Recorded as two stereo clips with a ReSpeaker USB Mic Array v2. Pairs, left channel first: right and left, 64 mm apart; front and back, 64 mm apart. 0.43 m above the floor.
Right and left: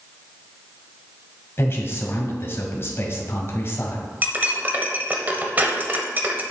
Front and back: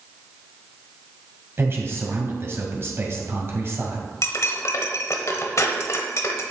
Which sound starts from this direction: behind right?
A man speaking, at 1.6 s.